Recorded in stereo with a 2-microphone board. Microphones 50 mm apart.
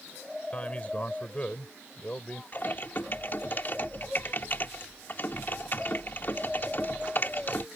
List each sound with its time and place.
0.5 s a man speaking: 30° left (ahead or behind)
2.5 s typing on a keyboard: 45° left (ahead or behind)